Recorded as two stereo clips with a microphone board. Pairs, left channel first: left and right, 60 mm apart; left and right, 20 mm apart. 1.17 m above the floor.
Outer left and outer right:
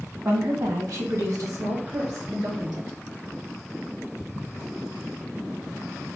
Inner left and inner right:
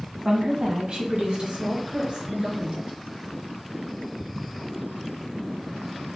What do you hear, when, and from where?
0.2 s a woman speaking: 55° right (ahead or behind), 1.1 m; by 3.0 s 85° right, 2.5 m